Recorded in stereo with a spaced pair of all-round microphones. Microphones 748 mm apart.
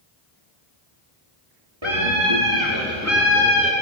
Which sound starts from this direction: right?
A scream, at 1.8 s.